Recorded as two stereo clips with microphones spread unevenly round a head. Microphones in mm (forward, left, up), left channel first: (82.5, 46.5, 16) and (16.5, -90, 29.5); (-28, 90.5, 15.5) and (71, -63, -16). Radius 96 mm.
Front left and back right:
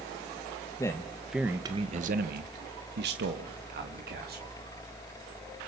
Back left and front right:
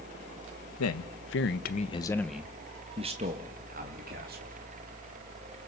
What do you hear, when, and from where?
0.8 s a man speaking: 135° left, 1.7 m; by 4.5 s 100° right, 3.5 m